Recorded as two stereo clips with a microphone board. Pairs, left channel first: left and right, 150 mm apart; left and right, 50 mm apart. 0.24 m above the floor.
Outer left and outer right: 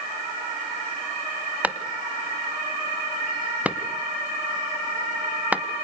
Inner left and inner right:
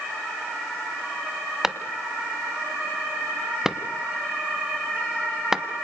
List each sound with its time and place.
1.6 s a clap: 10° right (ahead or behind), 1.2 m